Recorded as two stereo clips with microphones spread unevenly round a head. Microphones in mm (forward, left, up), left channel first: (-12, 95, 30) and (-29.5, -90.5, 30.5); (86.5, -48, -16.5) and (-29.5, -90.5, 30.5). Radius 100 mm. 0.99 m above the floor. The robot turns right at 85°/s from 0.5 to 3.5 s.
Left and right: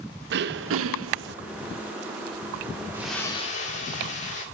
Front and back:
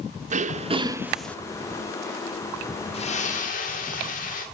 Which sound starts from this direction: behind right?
Throat clearing, at 0.3 s.